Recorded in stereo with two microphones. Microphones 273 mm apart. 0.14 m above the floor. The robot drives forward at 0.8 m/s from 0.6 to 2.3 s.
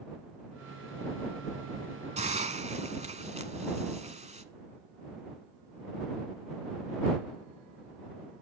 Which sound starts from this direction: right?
A hiss, at 2.2 s.